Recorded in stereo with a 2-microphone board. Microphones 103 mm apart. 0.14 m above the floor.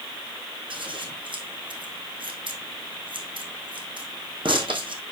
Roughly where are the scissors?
Right.